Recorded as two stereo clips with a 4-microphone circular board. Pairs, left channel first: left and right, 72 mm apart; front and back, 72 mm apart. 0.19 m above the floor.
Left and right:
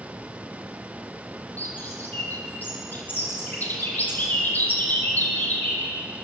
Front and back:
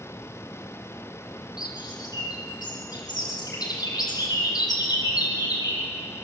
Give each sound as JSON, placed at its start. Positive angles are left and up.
{"t": 1.6, "sound": "a bird", "azimuth_deg": 25, "distance_m": 4.5}